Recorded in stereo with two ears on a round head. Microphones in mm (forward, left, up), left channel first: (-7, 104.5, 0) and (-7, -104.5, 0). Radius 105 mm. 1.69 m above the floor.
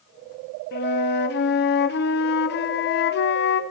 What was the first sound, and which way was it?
A flute, 45° left (ahead or behind).